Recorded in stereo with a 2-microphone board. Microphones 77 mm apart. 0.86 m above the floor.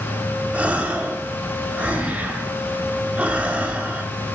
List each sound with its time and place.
0.5 s a gasp: 20° right (ahead or behind), 1.2 m